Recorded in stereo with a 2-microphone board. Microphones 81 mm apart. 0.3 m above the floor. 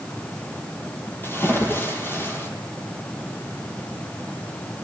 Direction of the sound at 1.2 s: 25° left (ahead or behind).